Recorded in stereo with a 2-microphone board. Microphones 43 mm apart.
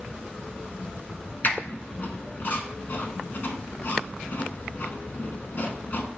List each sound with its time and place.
1.4 s a squeak: 50° left (ahead or behind), 0.6 m